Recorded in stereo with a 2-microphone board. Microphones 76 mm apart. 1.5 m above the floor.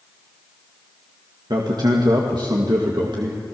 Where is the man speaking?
65° right (ahead or behind), 2.5 m.